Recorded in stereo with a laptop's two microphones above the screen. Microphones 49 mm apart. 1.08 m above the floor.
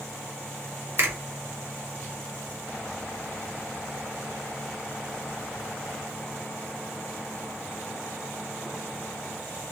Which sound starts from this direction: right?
A finger snap, at 1.0 s.